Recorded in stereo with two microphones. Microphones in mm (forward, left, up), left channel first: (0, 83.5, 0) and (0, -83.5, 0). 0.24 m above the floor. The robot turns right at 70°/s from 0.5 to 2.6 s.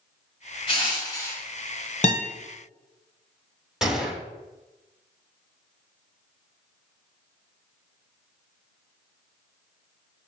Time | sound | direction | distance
0.7 | crushing | 110° left | 1.4 m
2.0 | a guitar | 50° left (ahead or behind) | 0.9 m
3.8 | a gunshot | 5° right (ahead or behind) | 0.8 m